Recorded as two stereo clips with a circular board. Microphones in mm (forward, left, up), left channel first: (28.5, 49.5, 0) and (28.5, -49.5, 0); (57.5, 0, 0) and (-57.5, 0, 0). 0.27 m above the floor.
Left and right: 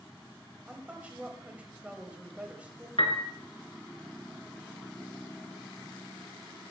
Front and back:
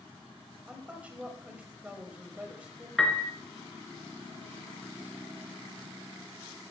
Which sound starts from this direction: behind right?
A woman speaking, at 0.7 s.